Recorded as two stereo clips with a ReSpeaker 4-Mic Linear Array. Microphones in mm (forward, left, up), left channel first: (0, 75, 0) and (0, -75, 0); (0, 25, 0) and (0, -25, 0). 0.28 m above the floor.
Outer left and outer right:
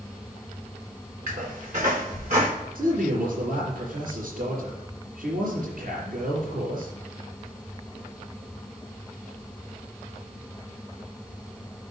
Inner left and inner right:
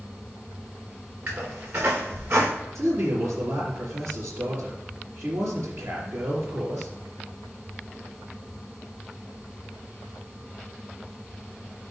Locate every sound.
1.3 s a squeak: 60° right (ahead or behind), 3.5 m
2.8 s a man speaking: 70° right (ahead or behind), 4 m